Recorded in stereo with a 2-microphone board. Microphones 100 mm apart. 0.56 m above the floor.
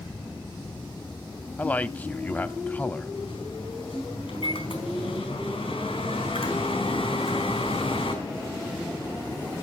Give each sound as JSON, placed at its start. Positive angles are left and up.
{"t": 1.6, "sound": "a man speaking", "side_deg": 20, "distance_m": 0.8}
{"t": 3.1, "sound": "a microwave", "side_deg": 80, "distance_m": 4.0}